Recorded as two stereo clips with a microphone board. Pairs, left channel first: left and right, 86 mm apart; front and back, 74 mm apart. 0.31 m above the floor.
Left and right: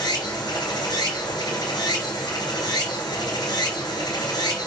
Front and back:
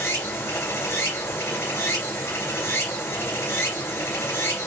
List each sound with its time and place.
0.0 s running water: 55° left, 3.5 m